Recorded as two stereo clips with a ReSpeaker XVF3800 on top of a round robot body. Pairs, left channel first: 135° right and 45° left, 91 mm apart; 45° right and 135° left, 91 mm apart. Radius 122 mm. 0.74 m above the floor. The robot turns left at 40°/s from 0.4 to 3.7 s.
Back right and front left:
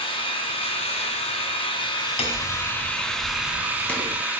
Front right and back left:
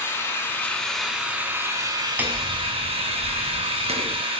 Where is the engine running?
110° right, 3.5 m; by 4.4 s 120° left, 3.5 m.